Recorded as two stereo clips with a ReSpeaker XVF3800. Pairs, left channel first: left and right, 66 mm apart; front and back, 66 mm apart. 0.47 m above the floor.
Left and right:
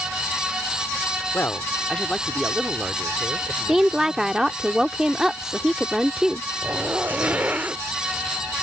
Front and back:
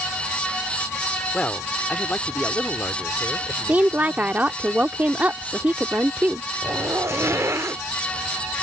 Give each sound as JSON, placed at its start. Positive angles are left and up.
{"t": 1.3, "sound": "a man speaking", "azimuth_deg": 65}
{"t": 3.7, "sound": "a woman speaking", "azimuth_deg": -160}
{"t": 6.6, "sound": "a zipper", "azimuth_deg": -150}